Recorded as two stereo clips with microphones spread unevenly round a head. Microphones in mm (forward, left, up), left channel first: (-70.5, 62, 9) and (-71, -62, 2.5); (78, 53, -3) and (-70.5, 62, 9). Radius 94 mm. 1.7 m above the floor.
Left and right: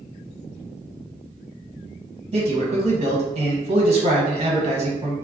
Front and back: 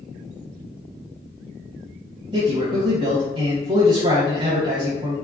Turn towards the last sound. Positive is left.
turn(degrees=-130)